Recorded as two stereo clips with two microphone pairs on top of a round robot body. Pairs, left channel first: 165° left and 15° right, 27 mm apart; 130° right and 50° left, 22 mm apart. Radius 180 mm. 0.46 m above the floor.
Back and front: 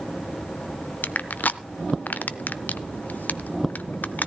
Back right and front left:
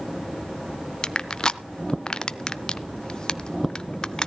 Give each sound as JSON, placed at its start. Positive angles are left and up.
{"t": 1.0, "sound": "crushing", "azimuth_deg": 170, "distance_m": 0.7}